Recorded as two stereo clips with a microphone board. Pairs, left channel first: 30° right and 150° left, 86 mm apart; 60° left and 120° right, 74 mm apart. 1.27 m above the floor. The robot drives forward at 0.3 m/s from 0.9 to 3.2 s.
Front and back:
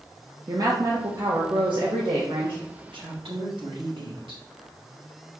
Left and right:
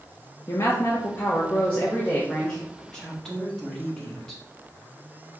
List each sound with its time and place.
0.5 s a woman speaking: 110° left, 0.7 m; by 2.6 s 140° left, 0.9 m
2.9 s a woman speaking: 145° left, 1.5 m